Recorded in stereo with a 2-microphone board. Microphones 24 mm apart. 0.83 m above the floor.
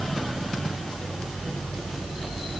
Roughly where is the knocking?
No knocking in this recording.